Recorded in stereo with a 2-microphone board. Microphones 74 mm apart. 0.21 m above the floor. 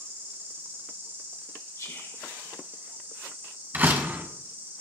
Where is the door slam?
30° right (ahead or behind), 1.1 m.